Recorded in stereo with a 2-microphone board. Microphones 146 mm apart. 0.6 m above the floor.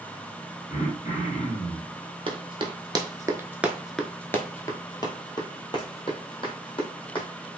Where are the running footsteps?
40° right (ahead or behind), 0.9 m; by 7.3 s 40° left (ahead or behind), 1.9 m.